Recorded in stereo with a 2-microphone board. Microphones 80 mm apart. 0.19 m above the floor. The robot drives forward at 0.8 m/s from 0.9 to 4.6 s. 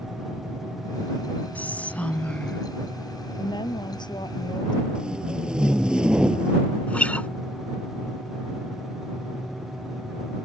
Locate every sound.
1.6 s whispering: 20° left (ahead or behind); by 2.7 s 15° left (ahead or behind)
3.4 s a woman speaking: 75° left (ahead or behind); by 4.8 s 70° left (ahead or behind)
5.0 s tape being pulled: 10° right (ahead or behind)
6.9 s a guitar: 15° left (ahead or behind)